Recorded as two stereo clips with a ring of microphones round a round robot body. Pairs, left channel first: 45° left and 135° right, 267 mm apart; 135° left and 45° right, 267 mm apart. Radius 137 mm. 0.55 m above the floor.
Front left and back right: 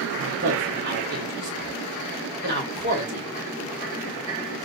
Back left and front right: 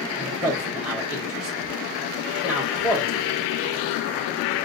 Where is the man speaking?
130° right, 1.0 m.